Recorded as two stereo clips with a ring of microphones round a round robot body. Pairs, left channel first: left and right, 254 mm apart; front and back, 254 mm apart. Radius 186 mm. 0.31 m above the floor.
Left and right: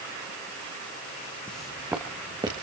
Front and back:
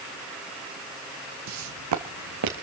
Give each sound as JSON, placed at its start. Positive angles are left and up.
{"t": 1.5, "sound": "footsteps", "azimuth_deg": 175, "distance_m": 1.1}